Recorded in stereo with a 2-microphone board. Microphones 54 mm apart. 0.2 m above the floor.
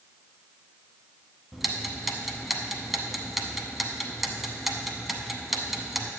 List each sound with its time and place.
1.5 s ticking: 5° right (ahead or behind), 0.8 m